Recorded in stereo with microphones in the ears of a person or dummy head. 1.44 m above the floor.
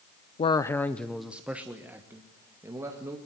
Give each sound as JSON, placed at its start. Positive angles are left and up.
{"t": 0.4, "sound": "a man speaking", "side_deg": 25, "distance_m": 0.5}